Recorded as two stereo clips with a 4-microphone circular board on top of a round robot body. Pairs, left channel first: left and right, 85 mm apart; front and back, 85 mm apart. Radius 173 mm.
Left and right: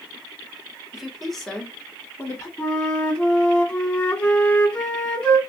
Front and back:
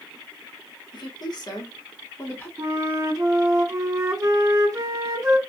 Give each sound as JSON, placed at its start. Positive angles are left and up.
{"t": 0.9, "sound": "a woman speaking", "azimuth_deg": -5, "distance_m": 1.8}
{"t": 2.6, "sound": "a flute", "azimuth_deg": 160, "distance_m": 1.8}